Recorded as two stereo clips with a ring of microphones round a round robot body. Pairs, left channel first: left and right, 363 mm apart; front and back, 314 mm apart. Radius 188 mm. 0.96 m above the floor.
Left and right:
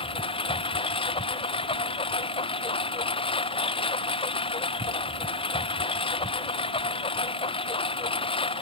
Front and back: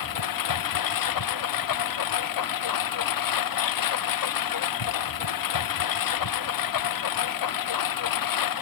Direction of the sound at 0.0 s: 15° left.